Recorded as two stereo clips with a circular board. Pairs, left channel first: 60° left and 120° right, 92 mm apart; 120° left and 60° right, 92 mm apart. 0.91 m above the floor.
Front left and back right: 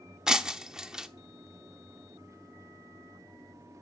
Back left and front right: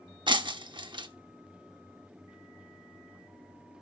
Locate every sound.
0.3 s breaking glass: 35° right, 0.8 m